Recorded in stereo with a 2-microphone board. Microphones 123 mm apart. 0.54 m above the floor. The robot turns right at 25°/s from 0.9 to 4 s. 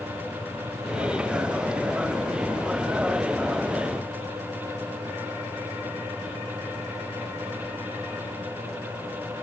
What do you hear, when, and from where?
Only background noise.